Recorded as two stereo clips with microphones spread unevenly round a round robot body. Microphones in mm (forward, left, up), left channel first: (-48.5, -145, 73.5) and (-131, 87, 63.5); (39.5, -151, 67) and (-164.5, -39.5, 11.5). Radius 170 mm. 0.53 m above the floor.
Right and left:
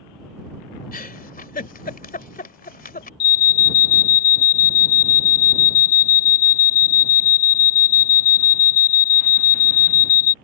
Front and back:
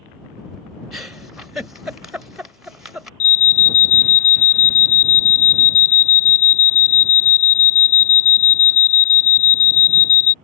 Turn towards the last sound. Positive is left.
turn(degrees=-70)